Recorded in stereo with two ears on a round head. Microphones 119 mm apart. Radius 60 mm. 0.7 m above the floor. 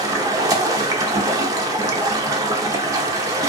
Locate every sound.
0.0 s running water: 25° right (ahead or behind), 0.7 m